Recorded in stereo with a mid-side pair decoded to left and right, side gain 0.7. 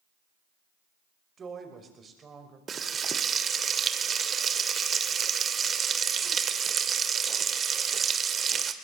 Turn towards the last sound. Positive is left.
turn(degrees=-30)